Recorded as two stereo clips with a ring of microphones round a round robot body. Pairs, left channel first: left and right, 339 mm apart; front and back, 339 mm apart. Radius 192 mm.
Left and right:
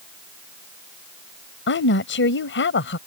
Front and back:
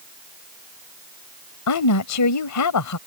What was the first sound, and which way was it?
A woman speaking, 35° left.